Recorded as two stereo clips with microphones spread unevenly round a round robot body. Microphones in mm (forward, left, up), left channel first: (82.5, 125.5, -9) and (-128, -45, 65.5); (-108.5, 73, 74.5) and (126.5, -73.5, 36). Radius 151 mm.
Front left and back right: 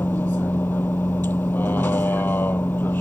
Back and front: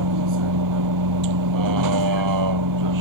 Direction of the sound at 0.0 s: 45° right.